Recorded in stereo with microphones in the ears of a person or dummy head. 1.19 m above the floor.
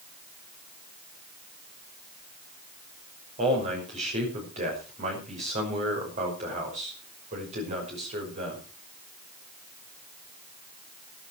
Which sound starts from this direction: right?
A man speaking, at 3.4 s.